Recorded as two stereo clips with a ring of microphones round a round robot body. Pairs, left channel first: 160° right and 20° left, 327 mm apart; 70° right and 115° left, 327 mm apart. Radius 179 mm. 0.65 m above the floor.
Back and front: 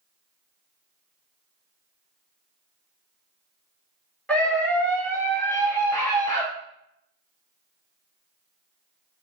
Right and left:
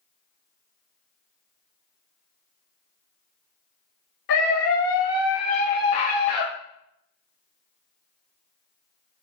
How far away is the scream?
About 2.5 m.